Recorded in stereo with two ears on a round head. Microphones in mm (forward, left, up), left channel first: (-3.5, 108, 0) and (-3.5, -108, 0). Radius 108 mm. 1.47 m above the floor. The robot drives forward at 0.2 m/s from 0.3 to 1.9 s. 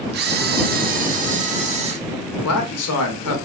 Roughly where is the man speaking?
Left.